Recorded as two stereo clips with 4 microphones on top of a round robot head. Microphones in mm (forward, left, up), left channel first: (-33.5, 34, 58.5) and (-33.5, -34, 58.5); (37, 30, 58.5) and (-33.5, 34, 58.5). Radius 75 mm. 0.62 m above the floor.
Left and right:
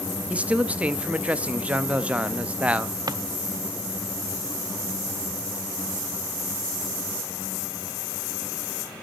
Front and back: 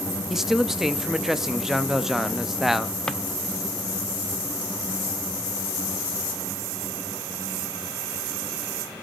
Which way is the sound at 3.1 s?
80° right.